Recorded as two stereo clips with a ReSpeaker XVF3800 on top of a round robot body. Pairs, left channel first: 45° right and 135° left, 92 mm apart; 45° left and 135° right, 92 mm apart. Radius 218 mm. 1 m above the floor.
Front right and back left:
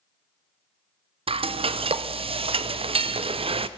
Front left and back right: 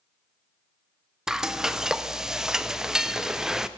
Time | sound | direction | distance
1.3 | frying | 140° left | 0.6 m